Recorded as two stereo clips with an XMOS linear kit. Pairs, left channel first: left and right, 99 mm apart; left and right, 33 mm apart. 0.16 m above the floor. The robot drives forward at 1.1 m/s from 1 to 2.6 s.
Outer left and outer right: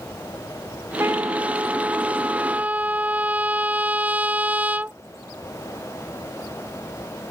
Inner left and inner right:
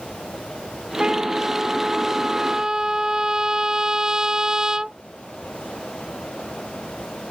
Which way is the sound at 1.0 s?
25° right (ahead or behind).